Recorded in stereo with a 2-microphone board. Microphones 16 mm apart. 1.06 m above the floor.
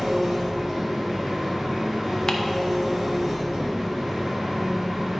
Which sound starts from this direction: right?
An engine running, at 0.0 s.